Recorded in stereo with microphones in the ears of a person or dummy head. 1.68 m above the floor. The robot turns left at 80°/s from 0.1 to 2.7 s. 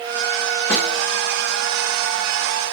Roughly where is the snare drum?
Centre.